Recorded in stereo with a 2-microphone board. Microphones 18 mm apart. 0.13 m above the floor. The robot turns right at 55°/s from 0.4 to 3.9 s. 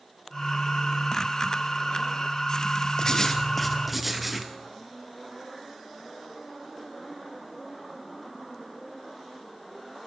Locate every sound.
3.0 s writing: 140° left, 1.8 m; by 4.5 s 170° right, 1.8 m